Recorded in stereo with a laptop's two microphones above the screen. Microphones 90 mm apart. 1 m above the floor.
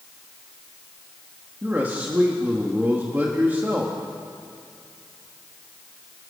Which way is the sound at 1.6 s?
25° right (ahead or behind).